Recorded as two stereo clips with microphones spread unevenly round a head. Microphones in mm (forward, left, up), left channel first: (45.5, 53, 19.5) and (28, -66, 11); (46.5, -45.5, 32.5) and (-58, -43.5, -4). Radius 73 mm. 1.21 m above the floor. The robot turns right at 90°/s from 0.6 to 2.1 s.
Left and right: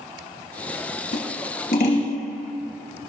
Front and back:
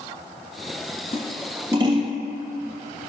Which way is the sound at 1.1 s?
60° left.